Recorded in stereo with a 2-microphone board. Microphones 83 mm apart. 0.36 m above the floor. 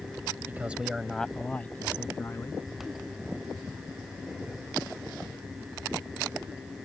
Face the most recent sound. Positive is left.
turn(degrees=30)  # may be behind; listen again after turning